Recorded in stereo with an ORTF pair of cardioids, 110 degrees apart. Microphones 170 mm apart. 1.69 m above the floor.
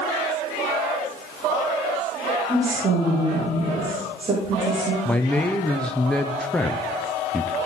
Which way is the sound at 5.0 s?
5° left.